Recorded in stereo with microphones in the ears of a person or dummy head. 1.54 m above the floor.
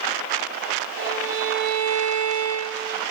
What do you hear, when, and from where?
1.0 s a violin: 70° right (ahead or behind), 3.5 m